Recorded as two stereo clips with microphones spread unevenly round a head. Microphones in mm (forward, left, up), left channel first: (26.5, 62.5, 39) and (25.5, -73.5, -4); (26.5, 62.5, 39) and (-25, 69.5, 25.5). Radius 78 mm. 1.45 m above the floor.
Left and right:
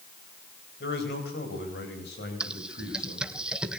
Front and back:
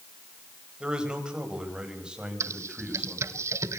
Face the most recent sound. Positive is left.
turn(degrees=170)